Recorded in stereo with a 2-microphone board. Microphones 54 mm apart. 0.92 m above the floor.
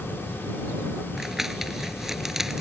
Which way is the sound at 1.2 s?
5° right (ahead or behind).